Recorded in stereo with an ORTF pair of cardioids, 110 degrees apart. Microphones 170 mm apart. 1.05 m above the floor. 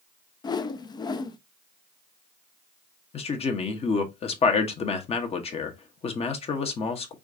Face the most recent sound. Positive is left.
turn(degrees=40)